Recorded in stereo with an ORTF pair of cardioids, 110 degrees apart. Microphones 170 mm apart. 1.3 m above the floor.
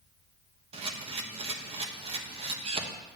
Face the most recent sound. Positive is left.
turn(degrees=-35)